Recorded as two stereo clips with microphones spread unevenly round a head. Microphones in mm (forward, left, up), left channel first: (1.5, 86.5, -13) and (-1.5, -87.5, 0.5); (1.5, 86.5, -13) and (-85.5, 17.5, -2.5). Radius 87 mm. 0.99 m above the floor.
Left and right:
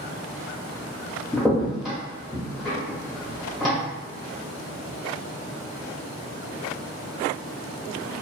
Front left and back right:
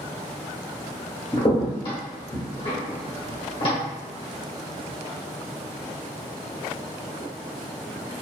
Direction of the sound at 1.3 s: Straight ahead.